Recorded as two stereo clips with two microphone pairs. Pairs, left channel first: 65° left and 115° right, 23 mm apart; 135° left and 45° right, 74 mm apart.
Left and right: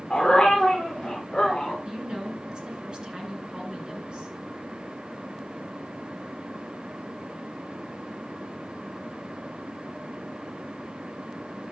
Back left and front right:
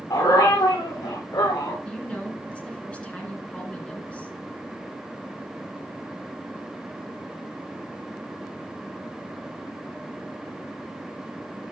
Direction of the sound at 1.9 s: 155° right.